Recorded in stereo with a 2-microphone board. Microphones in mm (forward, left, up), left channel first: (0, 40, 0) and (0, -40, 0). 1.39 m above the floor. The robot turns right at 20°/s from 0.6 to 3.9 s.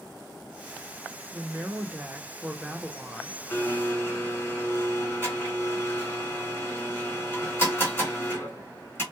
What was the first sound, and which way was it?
A woman speaking, 35° right.